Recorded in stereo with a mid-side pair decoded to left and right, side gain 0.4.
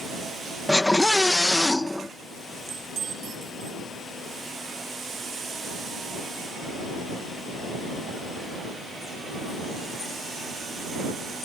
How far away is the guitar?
No guitar in this recording.